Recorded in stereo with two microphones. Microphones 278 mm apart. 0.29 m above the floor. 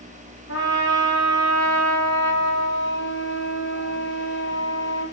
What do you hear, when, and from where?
0.5 s a trumpet: 60° left (ahead or behind), 5.5 m